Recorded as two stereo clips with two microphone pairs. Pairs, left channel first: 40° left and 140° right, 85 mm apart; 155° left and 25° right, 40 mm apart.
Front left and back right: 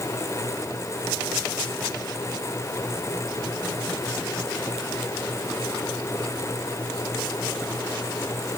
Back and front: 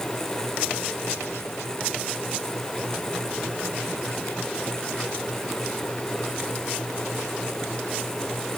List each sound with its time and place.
Only background noise.